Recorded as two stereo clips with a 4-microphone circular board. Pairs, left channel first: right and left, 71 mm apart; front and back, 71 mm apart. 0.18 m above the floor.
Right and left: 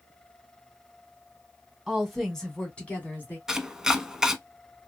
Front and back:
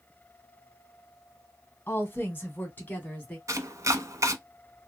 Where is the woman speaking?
10° left, 1.7 m; by 3.4 s 50° right, 1.8 m.